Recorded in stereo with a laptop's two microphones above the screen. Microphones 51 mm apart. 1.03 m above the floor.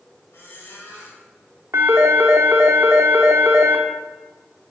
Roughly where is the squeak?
Left.